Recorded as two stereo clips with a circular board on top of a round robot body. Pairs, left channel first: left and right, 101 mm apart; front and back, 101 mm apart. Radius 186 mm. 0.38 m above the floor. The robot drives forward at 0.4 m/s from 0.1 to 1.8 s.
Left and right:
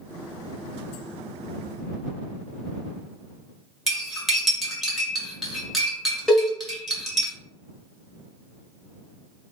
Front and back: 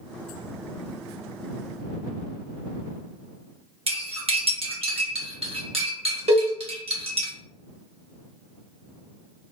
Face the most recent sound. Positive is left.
turn(degrees=175)